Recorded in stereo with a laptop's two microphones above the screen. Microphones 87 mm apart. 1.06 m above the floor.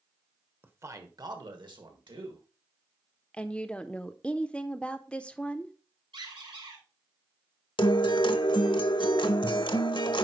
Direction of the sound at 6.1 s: 85° right.